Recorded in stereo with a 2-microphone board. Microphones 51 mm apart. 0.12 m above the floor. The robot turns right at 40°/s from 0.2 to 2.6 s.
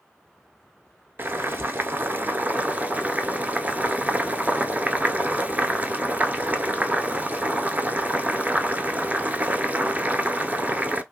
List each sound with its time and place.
1.2 s boiling: 100° right, 0.6 m; by 11.0 s 45° right, 0.6 m